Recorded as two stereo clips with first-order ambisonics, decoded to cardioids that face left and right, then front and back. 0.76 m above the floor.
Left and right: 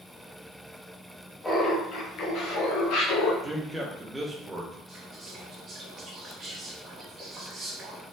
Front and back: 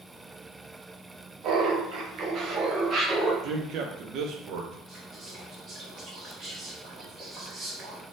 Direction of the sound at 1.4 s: 165° left.